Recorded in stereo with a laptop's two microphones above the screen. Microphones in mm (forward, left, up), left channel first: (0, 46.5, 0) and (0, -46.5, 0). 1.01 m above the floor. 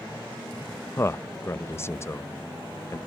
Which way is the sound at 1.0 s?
30° left (ahead or behind).